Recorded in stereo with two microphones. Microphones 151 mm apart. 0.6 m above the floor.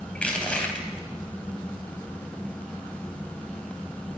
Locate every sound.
0.1 s crushing: 10° left (ahead or behind), 3 m